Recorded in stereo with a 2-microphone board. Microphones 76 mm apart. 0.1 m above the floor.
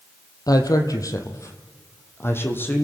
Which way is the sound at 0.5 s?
55° left (ahead or behind).